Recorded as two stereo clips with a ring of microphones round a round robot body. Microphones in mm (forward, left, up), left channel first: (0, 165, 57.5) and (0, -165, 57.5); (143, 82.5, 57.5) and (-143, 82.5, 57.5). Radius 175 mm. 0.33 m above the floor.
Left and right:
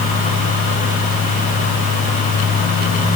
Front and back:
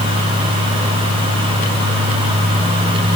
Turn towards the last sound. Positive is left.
No sound to turn to.